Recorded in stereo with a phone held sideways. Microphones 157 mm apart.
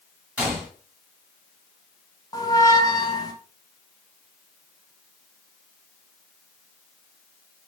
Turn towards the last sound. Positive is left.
turn(degrees=25)  # may be behind; listen again after turning